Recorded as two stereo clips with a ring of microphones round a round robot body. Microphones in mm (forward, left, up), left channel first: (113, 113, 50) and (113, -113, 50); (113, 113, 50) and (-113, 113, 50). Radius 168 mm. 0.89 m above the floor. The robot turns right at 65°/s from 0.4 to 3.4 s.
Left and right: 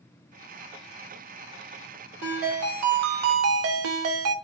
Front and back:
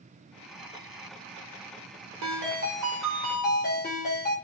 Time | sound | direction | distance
2.2 | a ringtone | 145° right | 0.5 m